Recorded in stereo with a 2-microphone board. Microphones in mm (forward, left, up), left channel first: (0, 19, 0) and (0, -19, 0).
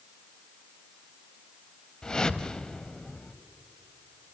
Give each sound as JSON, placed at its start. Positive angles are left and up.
{"t": 2.0, "sound": "a whoosh", "side_deg": 20, "distance_m": 0.7}